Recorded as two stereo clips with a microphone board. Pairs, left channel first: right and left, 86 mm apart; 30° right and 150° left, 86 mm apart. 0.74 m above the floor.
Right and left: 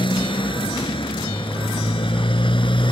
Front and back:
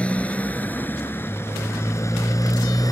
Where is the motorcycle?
105° right; by 2.9 s 75° right.